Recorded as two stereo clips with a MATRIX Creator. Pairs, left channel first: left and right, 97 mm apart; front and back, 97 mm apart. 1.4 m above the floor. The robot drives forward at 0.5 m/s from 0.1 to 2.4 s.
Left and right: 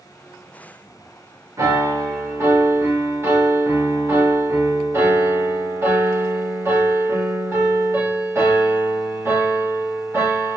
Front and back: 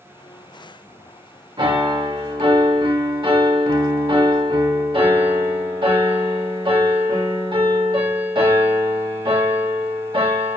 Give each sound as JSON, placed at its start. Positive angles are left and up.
{"t": 1.6, "sound": "a piano", "azimuth_deg": -145, "distance_m": 1.7}